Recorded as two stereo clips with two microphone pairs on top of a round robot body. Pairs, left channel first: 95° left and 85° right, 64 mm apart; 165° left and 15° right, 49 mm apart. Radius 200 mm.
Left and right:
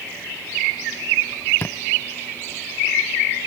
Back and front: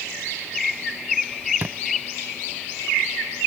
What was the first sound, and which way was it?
A thud, 40° left.